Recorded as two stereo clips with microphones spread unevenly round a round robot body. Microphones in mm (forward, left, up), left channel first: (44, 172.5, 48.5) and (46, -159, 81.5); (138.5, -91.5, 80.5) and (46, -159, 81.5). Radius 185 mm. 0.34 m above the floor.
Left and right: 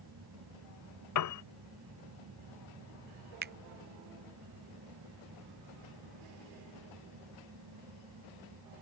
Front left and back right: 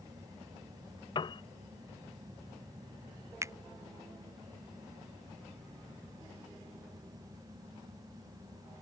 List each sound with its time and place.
1.1 s a piano: 80° left
3.4 s a finger snap: 120° right